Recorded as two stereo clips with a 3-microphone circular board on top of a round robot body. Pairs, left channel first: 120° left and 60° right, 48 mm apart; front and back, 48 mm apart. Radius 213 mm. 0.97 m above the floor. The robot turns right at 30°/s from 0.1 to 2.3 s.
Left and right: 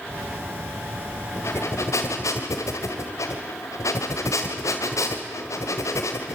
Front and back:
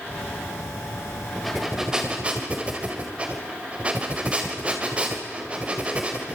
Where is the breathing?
85° left, 2.0 m; by 6.3 s 115° left, 2.0 m.